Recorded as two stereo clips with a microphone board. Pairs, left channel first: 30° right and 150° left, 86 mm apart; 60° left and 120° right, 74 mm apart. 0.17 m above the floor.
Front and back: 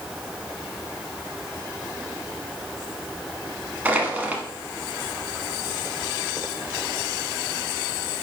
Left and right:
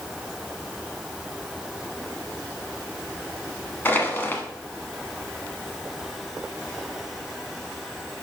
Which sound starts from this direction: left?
Crushing, at 3.9 s.